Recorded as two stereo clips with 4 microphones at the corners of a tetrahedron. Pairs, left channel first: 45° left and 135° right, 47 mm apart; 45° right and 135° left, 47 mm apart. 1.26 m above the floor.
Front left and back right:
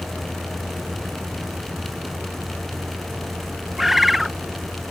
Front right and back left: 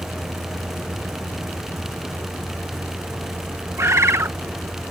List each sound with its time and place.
0.0 s a vehicle: 175° left
3.8 s a bird: 140° left